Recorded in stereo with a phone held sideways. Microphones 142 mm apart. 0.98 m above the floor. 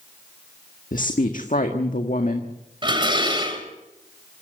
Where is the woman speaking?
70° left (ahead or behind), 1.6 m.